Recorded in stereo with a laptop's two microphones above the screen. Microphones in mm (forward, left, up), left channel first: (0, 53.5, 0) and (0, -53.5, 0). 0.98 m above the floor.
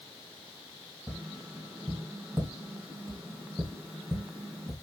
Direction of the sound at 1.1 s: 10° right (ahead or behind).